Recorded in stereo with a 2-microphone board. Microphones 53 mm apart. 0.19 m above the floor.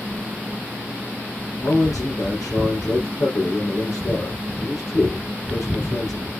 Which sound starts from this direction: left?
A man speaking, at 1.6 s.